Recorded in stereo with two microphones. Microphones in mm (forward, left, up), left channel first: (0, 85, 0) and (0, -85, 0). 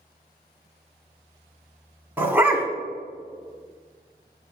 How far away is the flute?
I don't hear a flute.